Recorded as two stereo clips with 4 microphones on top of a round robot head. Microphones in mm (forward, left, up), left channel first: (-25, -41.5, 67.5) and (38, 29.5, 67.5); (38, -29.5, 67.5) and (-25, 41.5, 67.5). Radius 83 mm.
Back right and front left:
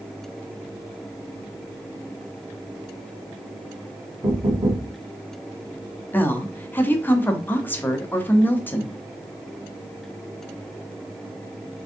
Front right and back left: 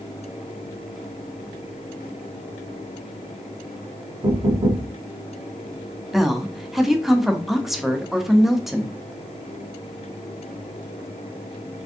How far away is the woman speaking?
About 0.7 m.